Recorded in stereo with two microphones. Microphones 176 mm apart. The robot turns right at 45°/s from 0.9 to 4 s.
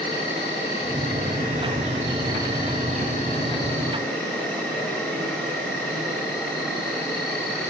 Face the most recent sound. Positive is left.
turn(degrees=170)